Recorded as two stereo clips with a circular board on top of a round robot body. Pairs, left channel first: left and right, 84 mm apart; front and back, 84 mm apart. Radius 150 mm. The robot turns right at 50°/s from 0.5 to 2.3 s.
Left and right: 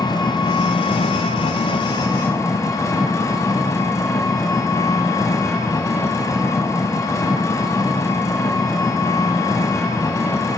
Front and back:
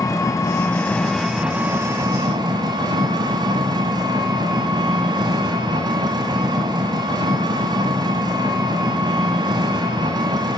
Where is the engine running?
55° left, 1.2 m; by 10.6 s 145° left, 1.2 m.